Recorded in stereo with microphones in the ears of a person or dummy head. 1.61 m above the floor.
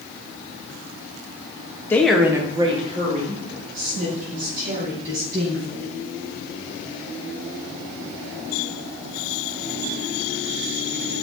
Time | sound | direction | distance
1.9 | a woman speaking | 15° left (ahead or behind) | 1.1 m